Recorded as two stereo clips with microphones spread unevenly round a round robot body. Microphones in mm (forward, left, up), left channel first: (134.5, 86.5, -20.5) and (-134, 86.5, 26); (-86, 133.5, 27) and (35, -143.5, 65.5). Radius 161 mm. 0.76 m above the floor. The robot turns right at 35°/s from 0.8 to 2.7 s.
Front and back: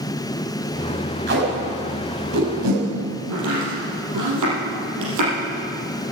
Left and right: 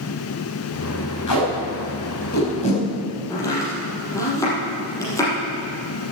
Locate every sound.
1.3 s tape being pulled: 135° left, 5.5 m; by 2.8 s 175° right, 5.5 m
3.3 s chopping: 165° right, 5.5 m